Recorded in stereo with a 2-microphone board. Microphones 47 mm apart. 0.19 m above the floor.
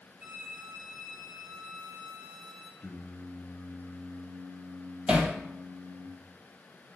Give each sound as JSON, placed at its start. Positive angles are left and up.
{"t": 0.2, "sound": "a violin", "side_deg": -35, "distance_m": 1.4}
{"t": 2.8, "sound": "singing", "side_deg": 35, "distance_m": 0.9}
{"t": 5.1, "sound": "hammering", "side_deg": -15, "distance_m": 1.2}